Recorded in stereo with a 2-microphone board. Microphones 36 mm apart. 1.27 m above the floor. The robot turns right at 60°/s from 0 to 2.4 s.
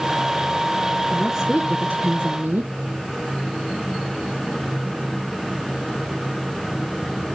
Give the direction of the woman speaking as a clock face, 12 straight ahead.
6 o'clock.